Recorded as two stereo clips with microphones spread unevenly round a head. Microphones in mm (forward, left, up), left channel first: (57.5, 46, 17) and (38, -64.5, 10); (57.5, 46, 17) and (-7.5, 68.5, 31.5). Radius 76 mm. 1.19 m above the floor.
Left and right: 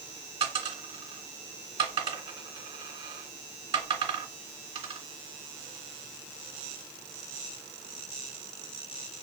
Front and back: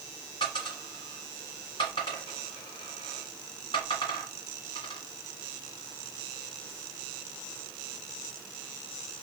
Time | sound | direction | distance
0.4 | a dropped coin | 70° right | 1.6 m